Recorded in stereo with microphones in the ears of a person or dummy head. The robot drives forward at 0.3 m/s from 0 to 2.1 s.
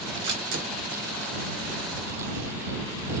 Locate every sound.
0.2 s a camera shutter: 55° right (ahead or behind), 1.7 m; by 3.1 s 65° right (ahead or behind), 1.5 m